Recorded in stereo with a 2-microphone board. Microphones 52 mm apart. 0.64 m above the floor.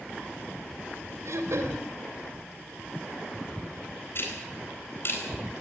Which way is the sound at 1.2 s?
70° right (ahead or behind).